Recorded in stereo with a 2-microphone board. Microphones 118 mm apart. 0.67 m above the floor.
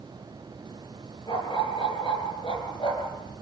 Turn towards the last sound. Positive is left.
turn(degrees=40)  # may be behind; listen again after turning